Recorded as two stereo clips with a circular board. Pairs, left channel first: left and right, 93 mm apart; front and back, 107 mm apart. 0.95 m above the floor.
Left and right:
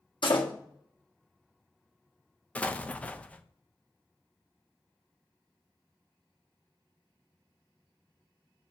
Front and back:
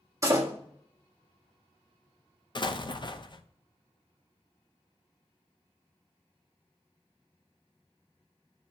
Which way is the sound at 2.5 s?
20° left.